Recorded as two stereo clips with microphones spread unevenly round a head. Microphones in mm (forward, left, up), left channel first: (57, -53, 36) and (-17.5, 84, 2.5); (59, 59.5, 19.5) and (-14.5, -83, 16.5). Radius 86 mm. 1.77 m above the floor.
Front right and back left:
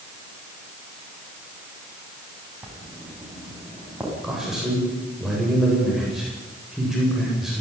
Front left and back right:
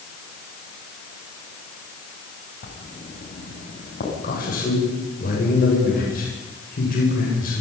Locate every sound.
2.6 s writing: 35° left, 8.5 m
4.2 s a man speaking: 30° left, 9 m